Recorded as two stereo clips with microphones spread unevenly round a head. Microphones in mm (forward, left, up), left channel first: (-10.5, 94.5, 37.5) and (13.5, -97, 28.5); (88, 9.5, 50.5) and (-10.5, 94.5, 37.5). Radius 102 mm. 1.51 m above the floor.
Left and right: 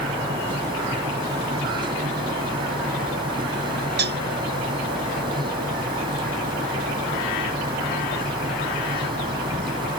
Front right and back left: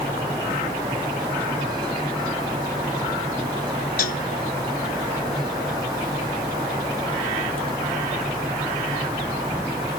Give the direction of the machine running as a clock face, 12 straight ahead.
5 o'clock.